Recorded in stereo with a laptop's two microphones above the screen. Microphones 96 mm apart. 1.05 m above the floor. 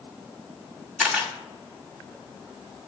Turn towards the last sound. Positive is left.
turn(degrees=-15)  # may be behind; listen again after turning